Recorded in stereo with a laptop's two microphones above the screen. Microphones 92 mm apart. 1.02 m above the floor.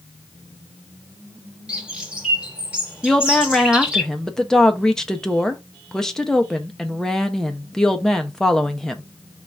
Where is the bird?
10° right (ahead or behind), 1.0 m.